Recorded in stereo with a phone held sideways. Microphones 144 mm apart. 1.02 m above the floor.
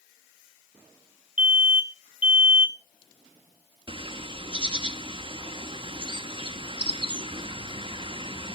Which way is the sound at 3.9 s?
35° right (ahead or behind).